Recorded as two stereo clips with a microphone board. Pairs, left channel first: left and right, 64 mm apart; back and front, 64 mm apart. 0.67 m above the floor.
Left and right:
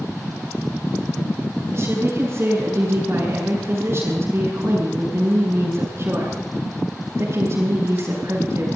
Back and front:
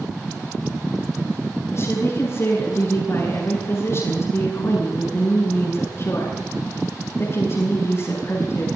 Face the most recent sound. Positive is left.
turn(degrees=-140)